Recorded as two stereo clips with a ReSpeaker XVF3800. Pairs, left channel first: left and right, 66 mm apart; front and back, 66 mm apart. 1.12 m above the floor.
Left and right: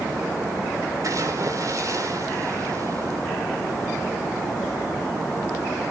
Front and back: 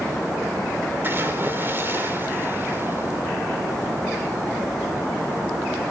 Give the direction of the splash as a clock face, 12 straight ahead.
4 o'clock.